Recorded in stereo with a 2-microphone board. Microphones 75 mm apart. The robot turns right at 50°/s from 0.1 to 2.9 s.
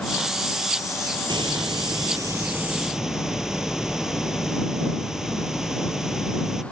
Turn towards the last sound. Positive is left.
turn(degrees=-5)